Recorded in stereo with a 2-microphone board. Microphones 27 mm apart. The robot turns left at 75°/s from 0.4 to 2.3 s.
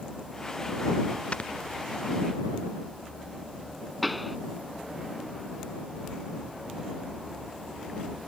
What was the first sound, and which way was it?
Snoring, 45° left (ahead or behind).